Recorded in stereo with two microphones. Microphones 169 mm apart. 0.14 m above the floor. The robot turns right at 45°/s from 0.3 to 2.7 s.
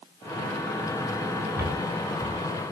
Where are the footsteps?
20° right (ahead or behind), 1.3 m; by 2.4 s 20° left (ahead or behind), 1.3 m.